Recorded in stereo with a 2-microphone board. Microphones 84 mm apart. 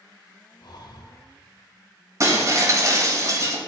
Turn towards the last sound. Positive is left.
turn(degrees=-45)  # may be behind; listen again after turning